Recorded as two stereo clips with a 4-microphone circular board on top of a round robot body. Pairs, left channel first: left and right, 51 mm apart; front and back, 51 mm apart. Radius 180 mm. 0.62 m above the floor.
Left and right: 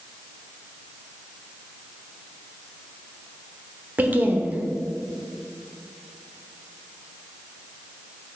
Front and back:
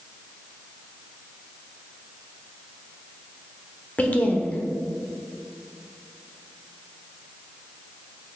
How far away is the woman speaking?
About 1.3 m.